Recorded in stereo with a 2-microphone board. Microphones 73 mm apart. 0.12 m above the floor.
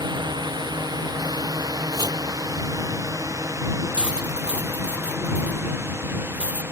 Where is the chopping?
65° right (ahead or behind).